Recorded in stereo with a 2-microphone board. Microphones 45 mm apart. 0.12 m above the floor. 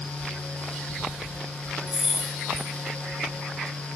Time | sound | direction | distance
1.9 | keys jangling | 10° right (ahead or behind) | 1.5 m